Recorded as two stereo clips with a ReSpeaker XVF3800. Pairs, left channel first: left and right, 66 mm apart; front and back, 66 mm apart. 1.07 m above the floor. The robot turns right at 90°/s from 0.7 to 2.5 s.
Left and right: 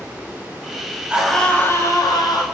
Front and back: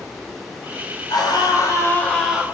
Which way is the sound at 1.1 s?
20° right.